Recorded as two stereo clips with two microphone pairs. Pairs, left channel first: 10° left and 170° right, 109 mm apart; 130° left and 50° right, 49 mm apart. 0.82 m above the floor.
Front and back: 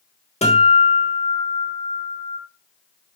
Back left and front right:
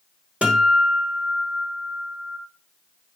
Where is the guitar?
15° left, 3 m.